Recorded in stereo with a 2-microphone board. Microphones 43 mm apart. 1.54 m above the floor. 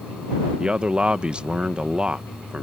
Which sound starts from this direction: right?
A man speaking, at 0.6 s.